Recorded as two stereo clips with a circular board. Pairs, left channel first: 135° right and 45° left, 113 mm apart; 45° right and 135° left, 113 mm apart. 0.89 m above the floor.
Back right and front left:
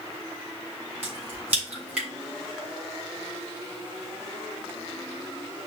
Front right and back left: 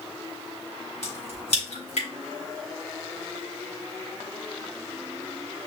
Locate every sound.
1.0 s a crack: 30° right, 3.5 m